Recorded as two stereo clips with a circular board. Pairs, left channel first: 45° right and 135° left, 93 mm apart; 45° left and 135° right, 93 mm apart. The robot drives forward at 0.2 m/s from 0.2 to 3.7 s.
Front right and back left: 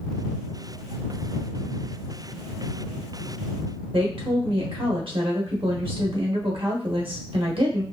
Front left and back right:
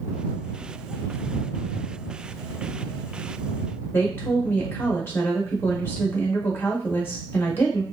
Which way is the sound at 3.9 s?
115° left.